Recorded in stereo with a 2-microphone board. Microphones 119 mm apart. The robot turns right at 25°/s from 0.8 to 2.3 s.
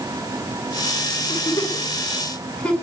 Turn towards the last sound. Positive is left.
turn(degrees=10)  # may be behind; listen again after turning